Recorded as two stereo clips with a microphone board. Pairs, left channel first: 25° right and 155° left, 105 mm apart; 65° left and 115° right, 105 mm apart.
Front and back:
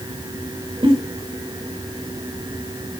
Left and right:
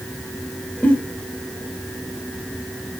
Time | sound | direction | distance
0.8 | a giggle | 140° left | 1.3 m